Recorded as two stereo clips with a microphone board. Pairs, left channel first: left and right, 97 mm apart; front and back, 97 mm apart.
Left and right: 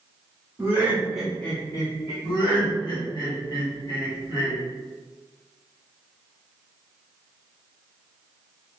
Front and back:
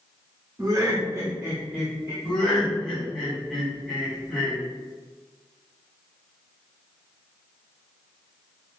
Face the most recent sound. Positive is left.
turn(degrees=80)